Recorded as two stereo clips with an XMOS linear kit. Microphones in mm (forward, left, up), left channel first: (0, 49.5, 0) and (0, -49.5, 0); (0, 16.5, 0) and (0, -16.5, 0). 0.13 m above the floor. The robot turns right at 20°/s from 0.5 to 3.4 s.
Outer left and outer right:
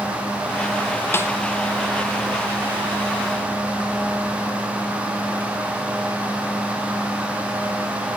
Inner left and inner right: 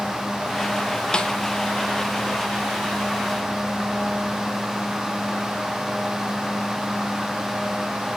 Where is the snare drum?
25° left (ahead or behind), 1.0 m; by 1.3 s 30° left (ahead or behind), 1.0 m.